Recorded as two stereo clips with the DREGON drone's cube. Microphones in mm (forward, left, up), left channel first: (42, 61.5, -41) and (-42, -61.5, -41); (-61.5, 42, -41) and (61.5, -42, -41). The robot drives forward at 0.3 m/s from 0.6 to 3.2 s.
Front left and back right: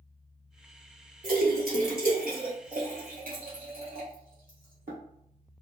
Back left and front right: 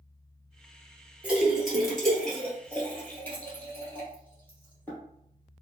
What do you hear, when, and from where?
1.2 s a splash: 115° right, 1.1 m; by 5.0 s 135° right, 1.5 m